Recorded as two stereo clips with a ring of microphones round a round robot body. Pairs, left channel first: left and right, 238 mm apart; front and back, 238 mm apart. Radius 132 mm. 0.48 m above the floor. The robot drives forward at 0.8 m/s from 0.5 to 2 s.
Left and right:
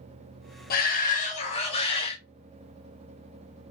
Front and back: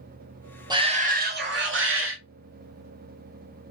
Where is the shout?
115° left, 0.9 m; by 2.2 s 155° left, 1.6 m.